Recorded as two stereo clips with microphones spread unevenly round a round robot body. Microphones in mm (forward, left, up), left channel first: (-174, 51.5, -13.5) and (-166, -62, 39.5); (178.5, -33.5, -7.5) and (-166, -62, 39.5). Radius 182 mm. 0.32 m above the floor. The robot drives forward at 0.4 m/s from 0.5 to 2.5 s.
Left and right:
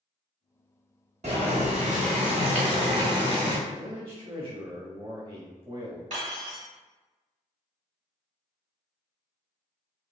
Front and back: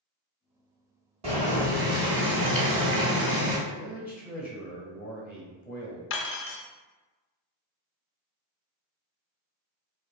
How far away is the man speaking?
About 1.2 m.